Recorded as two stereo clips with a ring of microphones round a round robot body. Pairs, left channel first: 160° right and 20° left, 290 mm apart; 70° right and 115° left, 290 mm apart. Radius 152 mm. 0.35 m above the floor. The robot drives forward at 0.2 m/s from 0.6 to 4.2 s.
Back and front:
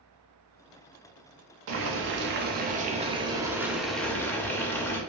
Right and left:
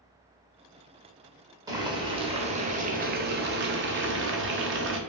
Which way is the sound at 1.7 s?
40° left.